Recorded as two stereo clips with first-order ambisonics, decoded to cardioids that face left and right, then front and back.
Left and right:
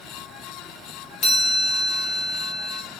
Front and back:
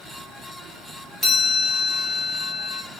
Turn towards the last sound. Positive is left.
turn(degrees=85)